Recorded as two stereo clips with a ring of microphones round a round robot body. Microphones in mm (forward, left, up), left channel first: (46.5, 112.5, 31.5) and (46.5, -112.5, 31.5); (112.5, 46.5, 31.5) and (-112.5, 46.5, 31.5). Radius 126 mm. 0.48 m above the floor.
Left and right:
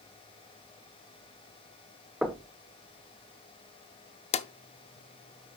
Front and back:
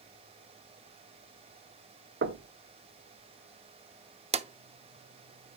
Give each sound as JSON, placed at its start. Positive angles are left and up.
{"t": 2.2, "sound": "knocking", "azimuth_deg": -175, "distance_m": 1.0}
{"t": 4.3, "sound": "a drawer", "azimuth_deg": 135, "distance_m": 0.6}